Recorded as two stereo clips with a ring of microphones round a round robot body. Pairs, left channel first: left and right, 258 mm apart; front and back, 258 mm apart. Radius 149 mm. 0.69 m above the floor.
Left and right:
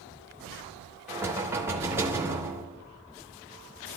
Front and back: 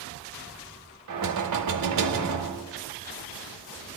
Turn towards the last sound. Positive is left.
turn(degrees=-170)